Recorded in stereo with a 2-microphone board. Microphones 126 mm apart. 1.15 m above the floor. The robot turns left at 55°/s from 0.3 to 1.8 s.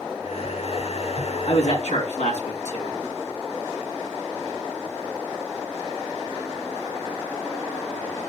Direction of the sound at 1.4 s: 60° left (ahead or behind).